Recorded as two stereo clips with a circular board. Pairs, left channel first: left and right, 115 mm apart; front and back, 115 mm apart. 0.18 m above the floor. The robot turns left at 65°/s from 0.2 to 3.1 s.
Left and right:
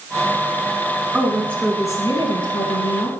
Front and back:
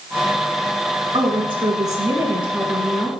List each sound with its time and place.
1.1 s a woman speaking: 170° right, 1.9 m; by 3.1 s 60° left, 1.9 m